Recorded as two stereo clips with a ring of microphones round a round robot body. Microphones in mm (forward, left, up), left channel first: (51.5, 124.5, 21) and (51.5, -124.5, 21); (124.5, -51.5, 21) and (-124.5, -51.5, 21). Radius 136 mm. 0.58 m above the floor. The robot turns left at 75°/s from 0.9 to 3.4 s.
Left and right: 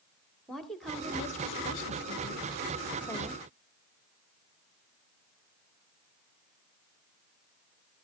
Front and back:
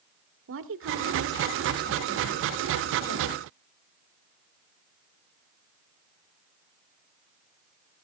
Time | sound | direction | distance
0.5 | a woman speaking | straight behind | 1.6 m